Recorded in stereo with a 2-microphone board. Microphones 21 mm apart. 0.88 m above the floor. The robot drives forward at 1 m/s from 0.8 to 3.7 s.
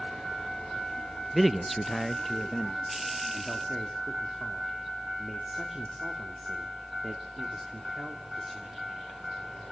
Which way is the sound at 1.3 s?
5° right (ahead or behind).